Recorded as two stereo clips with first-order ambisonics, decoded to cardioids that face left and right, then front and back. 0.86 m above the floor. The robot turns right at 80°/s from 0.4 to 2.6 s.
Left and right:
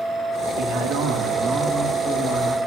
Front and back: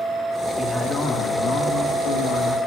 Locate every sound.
0.6 s a man speaking: 105° right, 1.4 m; by 2.6 s 55° left, 1.4 m